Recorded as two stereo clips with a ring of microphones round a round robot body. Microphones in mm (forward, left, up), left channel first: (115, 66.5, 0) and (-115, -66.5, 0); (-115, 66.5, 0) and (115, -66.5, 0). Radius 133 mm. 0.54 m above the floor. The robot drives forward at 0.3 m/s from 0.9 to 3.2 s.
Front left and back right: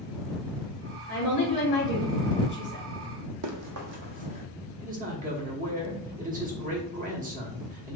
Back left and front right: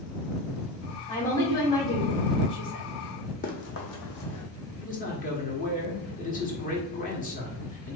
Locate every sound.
1.1 s a woman speaking: 80° left, 1.8 m; by 2.8 s 100° left, 1.8 m
3.4 s running footsteps: 155° right, 1.1 m; by 4.5 s 140° left, 1.4 m
4.8 s a man speaking: straight behind, 1.1 m